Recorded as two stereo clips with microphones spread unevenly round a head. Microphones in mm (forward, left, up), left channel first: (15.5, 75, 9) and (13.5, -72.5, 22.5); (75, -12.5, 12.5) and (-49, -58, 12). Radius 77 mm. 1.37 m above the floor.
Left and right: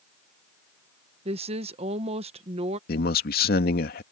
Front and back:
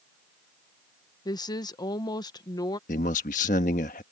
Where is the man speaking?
65° left.